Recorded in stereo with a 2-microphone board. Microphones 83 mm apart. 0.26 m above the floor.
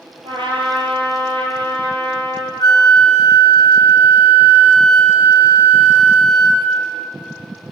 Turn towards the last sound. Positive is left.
turn(degrees=50)  # may be behind; listen again after turning